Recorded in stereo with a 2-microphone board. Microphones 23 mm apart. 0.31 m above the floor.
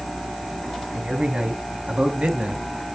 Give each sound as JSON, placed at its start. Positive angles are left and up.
{"t": 0.9, "sound": "a man speaking", "side_deg": -50, "distance_m": 3.5}